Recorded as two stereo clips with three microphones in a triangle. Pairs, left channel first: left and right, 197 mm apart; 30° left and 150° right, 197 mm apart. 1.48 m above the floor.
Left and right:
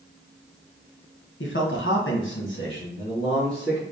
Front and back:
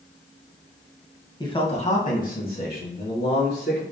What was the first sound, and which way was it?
A man speaking, 100° left.